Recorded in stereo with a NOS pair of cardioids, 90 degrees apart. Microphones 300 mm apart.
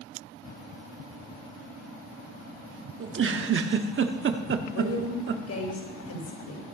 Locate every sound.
3.0 s a giggle: 45° right, 1.3 m
4.7 s a woman speaking: 55° left, 5 m